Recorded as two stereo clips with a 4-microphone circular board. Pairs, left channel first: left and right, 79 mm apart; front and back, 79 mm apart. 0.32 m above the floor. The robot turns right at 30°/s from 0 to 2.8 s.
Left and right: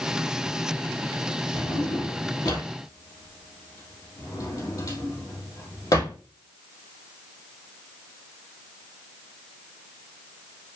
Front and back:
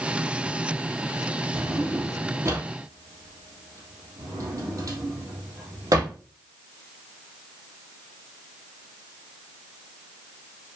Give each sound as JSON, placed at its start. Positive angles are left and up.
{"t": 1.5, "sound": "a drawer", "azimuth_deg": 95, "distance_m": 3.0}